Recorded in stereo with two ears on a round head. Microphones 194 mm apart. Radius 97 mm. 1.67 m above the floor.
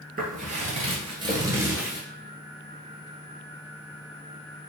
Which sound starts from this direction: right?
Footsteps, at 0.2 s.